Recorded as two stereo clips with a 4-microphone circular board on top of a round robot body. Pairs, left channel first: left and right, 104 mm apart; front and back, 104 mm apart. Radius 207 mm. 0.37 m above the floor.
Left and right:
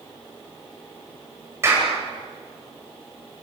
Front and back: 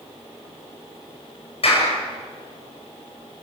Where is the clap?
25° right, 9 m.